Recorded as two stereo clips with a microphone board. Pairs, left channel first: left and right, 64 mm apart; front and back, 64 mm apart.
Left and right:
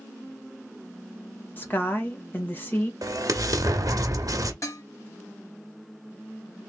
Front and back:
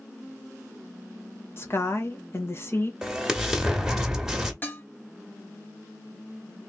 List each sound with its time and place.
1.6 s a woman speaking: 40° left, 1.3 m
3.0 s an explosion: 100° right, 0.9 m
4.6 s dishes clattering: 55° left, 1.2 m